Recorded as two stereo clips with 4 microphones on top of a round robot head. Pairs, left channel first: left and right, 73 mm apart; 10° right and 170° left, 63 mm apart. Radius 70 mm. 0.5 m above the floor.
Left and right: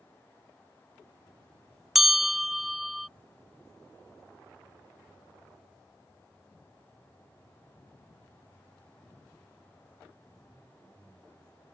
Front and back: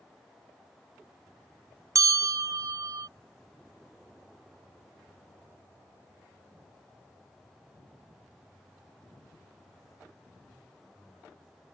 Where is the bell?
175° right.